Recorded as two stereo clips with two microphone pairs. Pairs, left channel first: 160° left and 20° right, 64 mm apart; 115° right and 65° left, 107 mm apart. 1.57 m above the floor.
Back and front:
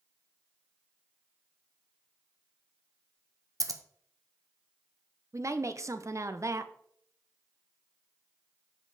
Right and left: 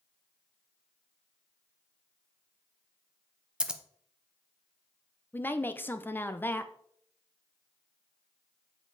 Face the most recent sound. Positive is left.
turn(degrees=-50)